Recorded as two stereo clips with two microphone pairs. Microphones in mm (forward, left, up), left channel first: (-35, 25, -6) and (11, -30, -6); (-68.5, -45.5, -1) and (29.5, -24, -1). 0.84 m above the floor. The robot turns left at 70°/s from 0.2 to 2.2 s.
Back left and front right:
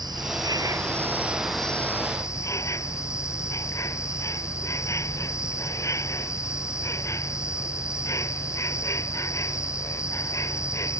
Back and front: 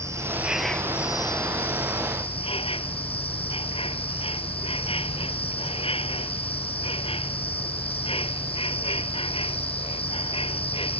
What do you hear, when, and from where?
0.0 s an insect: 45° right; by 11.0 s 175° left